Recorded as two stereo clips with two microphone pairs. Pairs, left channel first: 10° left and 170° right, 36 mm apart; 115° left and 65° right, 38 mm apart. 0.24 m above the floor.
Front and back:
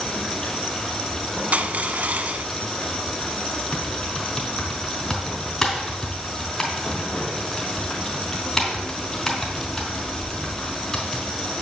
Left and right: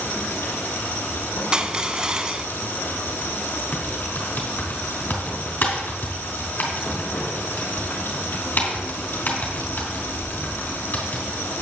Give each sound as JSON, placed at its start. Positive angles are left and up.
{"t": 0.0, "sound": "running water", "azimuth_deg": 85, "distance_m": 2.5}
{"t": 1.5, "sound": "crushing", "azimuth_deg": -130, "distance_m": 0.6}
{"t": 3.7, "sound": "typing on a keyboard", "azimuth_deg": 80, "distance_m": 3.0}